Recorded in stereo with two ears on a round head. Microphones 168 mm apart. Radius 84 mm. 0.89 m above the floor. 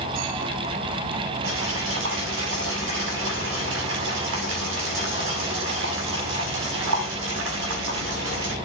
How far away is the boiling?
About 7 m.